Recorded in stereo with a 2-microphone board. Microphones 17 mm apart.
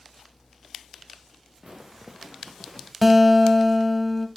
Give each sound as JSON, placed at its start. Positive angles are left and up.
{"t": 1.6, "sound": "footsteps", "side_deg": -35, "distance_m": 1.3}
{"t": 3.0, "sound": "a guitar", "side_deg": -5, "distance_m": 1.3}